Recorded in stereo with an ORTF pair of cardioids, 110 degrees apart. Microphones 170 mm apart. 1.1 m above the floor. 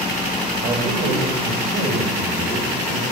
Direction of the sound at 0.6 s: 45° right.